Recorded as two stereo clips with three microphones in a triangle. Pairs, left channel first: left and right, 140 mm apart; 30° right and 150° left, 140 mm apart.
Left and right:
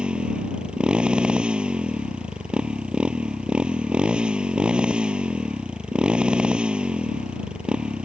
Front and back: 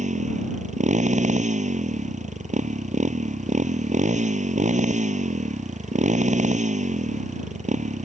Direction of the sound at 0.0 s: 175° right.